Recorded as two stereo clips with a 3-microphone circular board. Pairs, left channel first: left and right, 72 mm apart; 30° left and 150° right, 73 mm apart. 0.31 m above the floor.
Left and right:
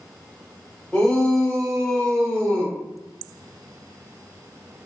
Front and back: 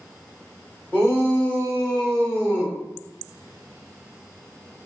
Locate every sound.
0.9 s a shout: 35° left, 1.6 m; by 2.8 s 125° left, 1.6 m